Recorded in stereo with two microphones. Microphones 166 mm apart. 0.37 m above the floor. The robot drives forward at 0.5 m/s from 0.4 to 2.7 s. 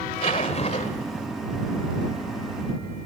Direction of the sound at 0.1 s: 35° left (ahead or behind).